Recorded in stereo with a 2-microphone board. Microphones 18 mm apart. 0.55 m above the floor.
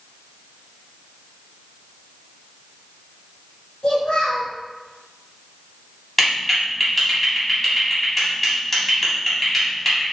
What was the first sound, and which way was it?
A child speaking, 70° left (ahead or behind).